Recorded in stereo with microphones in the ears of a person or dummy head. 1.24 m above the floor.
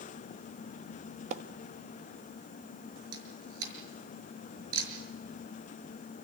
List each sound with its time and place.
1.3 s a splash: 35° right (ahead or behind), 1.1 m
3.1 s a camera shutter: 75° right (ahead or behind), 6 m